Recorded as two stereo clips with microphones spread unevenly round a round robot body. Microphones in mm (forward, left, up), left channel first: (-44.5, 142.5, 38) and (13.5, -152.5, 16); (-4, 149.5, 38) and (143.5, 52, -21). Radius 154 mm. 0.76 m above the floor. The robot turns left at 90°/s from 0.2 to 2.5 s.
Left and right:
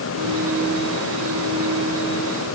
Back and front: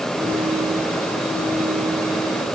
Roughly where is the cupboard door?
No cupboard door in this recording.